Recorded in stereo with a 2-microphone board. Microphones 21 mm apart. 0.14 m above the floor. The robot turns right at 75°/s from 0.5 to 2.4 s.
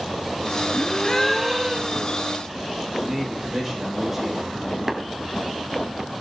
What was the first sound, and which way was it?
A gasp, 130° left.